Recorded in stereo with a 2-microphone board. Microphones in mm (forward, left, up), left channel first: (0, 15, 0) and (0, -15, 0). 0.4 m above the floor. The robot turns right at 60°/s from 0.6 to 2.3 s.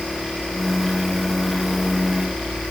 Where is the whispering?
No whispering in this recording.